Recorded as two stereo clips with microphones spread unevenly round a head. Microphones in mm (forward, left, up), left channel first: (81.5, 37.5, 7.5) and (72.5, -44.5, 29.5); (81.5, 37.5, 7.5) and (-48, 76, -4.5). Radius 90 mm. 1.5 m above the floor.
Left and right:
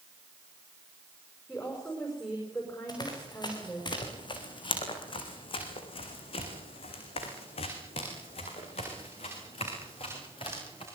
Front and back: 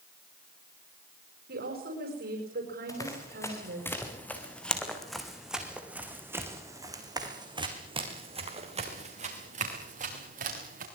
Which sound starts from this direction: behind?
A woman speaking, at 1.5 s.